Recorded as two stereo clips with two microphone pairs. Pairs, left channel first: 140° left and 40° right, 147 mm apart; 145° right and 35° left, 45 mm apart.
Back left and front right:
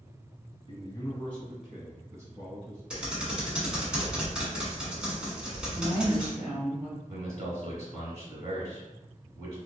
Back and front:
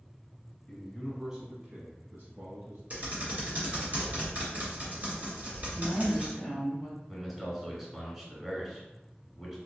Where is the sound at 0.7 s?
150° left, 1.3 m; by 2.8 s 15° left, 2 m.